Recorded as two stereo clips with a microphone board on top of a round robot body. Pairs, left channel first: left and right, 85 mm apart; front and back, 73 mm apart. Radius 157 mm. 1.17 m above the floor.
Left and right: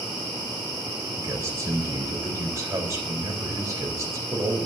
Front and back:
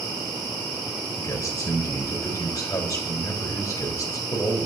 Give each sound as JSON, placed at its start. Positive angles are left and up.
{"t": 1.2, "sound": "a man speaking", "azimuth_deg": -40, "distance_m": 4.0}